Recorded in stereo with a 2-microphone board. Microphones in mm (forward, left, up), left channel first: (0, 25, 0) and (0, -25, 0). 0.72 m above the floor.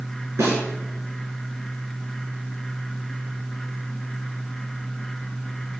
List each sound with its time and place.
0.4 s a snare drum: 85° right, 3 m